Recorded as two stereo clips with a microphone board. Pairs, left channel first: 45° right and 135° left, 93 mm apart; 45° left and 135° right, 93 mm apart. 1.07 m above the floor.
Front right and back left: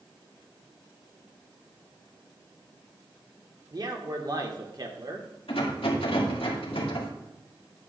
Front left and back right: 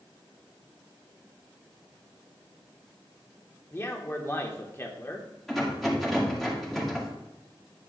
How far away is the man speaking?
About 1.3 m.